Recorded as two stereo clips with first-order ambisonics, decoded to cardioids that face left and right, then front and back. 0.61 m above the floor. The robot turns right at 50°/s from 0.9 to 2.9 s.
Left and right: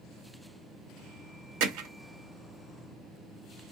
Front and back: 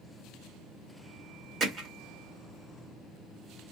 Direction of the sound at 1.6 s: 105° right.